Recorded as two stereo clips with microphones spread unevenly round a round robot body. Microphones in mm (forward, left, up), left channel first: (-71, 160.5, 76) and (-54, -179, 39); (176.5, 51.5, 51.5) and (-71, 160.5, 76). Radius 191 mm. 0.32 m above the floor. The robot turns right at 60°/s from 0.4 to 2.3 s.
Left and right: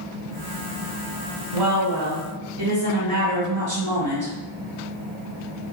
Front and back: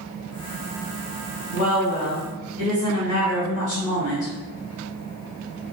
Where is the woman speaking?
80° right, 1.9 m; by 4.3 s 35° right, 1.9 m.